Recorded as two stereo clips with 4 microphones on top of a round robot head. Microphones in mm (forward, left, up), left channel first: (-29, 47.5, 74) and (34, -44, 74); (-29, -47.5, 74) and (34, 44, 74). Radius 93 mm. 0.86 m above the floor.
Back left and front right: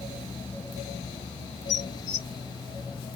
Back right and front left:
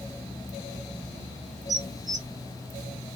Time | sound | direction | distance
1.7 | dishes clattering | 115° left | 2.0 m